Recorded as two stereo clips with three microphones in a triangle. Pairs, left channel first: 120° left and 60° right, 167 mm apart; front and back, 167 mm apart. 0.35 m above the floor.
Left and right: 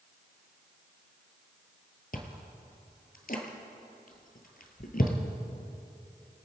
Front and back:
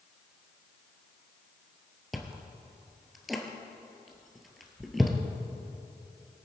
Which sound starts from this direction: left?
Chewing, at 2.1 s.